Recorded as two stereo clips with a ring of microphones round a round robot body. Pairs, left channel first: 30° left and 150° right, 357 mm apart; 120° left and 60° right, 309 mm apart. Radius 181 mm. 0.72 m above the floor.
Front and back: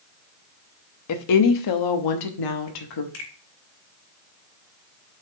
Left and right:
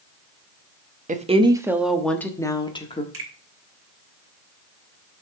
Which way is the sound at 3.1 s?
25° right.